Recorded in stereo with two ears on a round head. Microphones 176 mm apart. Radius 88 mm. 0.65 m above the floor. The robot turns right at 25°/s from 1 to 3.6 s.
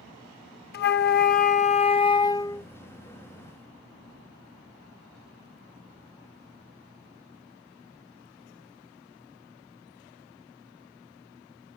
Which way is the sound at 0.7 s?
125° left.